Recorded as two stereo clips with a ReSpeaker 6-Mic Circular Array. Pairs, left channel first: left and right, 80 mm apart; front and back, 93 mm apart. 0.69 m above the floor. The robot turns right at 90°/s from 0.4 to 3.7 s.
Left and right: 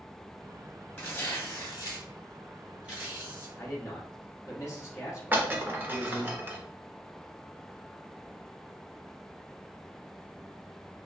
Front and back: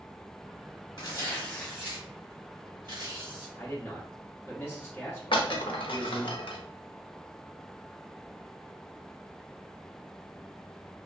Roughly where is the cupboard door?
I don't hear a cupboard door.